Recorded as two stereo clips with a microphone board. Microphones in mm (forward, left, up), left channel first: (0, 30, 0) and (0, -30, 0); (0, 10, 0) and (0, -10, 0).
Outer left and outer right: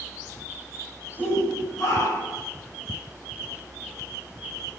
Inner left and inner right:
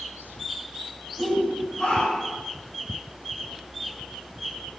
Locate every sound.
1.2 s a shout: 75° left (ahead or behind), 7.5 m